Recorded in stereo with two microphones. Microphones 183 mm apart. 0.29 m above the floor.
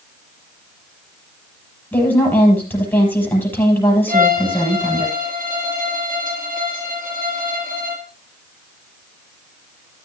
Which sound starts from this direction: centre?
A woman speaking, at 1.9 s.